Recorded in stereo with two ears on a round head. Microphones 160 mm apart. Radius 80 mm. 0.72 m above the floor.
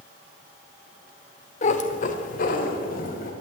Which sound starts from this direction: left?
A cat meowing, at 1.6 s.